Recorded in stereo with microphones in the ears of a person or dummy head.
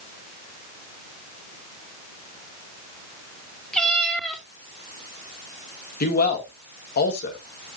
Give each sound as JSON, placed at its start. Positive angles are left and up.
{"t": 3.7, "sound": "a cat meowing", "side_deg": 5, "distance_m": 2.0}
{"t": 6.0, "sound": "a man speaking", "side_deg": 50, "distance_m": 2.0}